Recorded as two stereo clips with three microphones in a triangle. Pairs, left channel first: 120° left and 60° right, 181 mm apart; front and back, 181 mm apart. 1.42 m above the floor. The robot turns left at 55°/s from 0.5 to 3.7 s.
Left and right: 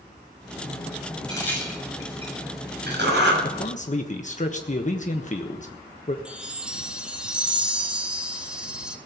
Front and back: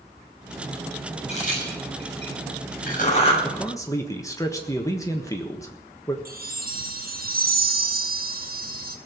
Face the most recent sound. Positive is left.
turn(degrees=-145)